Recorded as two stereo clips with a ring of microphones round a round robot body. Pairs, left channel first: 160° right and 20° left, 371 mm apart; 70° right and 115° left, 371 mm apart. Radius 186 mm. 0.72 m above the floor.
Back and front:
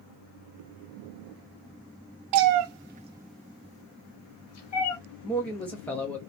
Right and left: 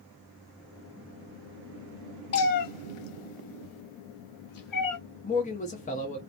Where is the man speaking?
80° right, 0.5 m.